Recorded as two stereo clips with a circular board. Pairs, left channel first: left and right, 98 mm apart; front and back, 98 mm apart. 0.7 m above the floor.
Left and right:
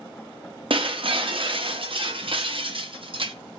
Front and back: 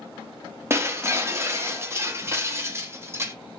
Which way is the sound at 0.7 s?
115° right.